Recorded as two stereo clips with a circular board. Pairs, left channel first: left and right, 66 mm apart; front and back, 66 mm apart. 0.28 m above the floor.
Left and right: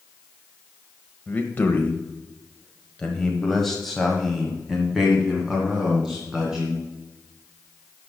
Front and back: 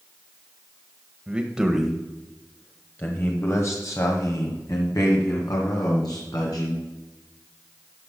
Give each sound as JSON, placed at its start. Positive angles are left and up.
{"t": 1.3, "sound": "a man speaking", "azimuth_deg": 125, "distance_m": 1.2}